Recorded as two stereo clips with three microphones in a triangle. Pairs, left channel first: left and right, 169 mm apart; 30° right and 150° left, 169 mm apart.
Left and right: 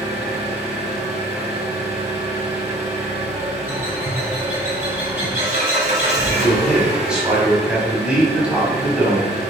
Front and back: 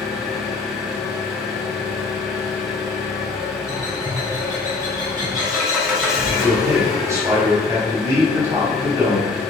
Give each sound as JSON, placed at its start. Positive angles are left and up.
{"t": 0.0, "sound": "an engine running", "azimuth_deg": -120, "distance_m": 1.3}
{"t": 3.7, "sound": "a bird", "azimuth_deg": -155, "distance_m": 1.9}
{"t": 6.4, "sound": "a man speaking", "azimuth_deg": -165, "distance_m": 1.0}